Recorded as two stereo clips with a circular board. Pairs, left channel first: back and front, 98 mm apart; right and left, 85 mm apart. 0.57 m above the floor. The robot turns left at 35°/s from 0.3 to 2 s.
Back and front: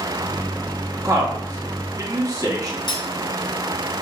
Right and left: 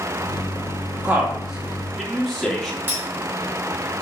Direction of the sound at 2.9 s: 150° left.